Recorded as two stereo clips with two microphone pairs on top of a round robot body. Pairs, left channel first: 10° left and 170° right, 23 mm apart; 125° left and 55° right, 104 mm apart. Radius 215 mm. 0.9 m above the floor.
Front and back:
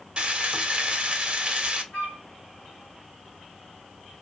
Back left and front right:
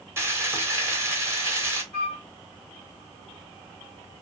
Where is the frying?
120° right, 1.3 m.